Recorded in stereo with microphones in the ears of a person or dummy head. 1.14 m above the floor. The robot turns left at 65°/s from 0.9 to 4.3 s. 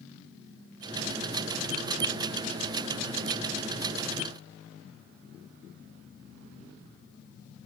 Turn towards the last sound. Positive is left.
No sound to turn to.